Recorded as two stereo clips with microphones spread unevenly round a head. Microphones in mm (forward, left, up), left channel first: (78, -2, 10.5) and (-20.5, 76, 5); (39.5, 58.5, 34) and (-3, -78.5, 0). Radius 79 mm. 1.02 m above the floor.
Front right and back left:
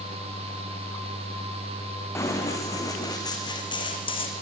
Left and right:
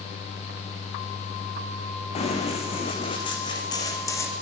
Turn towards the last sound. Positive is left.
turn(degrees=5)